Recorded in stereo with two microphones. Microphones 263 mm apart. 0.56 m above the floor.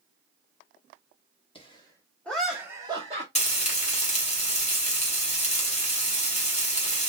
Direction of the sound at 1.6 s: 20° left (ahead or behind).